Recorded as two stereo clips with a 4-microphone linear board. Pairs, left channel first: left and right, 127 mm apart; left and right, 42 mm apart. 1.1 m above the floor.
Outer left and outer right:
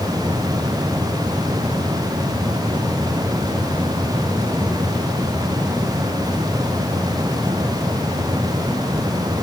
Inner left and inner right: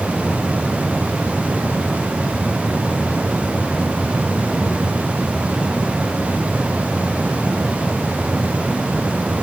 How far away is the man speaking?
No man speaking in this recording.